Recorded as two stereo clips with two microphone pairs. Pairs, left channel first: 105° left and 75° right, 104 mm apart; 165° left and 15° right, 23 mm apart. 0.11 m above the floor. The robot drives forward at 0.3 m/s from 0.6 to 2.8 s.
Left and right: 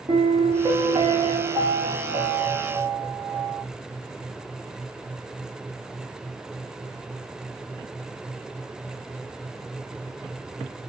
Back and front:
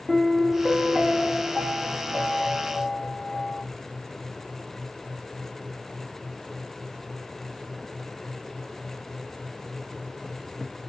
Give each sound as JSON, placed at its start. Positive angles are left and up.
{"t": 0.1, "sound": "a piano", "azimuth_deg": -85, "distance_m": 0.8}